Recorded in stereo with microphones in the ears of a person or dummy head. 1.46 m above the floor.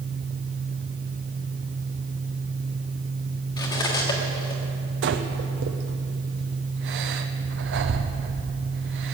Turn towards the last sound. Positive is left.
turn(degrees=-55)  # may be behind; listen again after turning